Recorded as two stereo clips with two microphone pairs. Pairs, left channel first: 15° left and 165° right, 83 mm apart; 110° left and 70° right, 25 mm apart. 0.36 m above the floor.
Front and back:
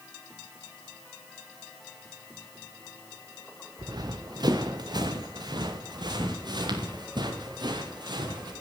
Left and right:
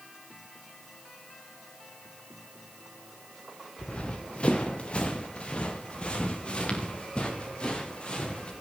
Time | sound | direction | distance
3.8 | running footsteps | 160° left | 2 m